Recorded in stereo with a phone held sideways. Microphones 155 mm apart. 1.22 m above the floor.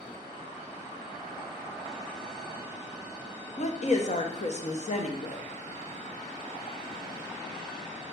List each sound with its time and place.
3.6 s a woman speaking: 50° left (ahead or behind), 0.8 m